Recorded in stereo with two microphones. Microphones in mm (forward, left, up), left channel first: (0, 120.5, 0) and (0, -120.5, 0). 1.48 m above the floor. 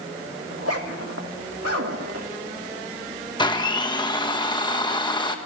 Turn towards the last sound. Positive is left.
turn(degrees=20)  # may be behind; listen again after turning